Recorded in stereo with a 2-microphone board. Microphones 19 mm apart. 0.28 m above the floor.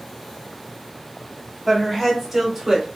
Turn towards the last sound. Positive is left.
turn(degrees=-20)  # may be behind; listen again after turning